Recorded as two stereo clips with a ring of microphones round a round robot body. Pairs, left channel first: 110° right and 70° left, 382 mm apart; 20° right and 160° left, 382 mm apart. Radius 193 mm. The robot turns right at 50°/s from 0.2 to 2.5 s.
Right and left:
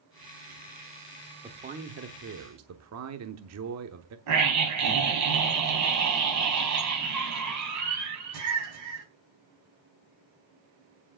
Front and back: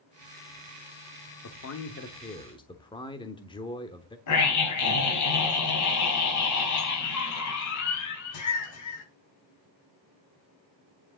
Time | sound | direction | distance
1.4 | a man speaking | 5° right | 0.9 m
4.3 | a scream | 20° left | 4 m